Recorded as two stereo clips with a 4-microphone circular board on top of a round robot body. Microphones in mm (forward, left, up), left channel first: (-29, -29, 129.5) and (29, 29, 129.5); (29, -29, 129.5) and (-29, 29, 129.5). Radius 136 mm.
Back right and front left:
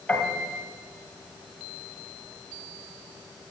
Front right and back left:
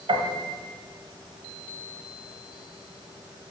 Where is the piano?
140° left, 1.6 m.